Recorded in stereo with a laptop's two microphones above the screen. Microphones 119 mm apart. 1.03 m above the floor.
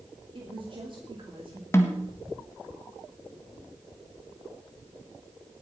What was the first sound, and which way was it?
A woman speaking, 45° right (ahead or behind).